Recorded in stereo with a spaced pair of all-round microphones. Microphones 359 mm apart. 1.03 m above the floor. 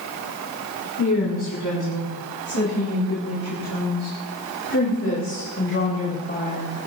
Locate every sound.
1.0 s a woman speaking: 60° left (ahead or behind), 8 m; by 6.7 s 20° left (ahead or behind), 4 m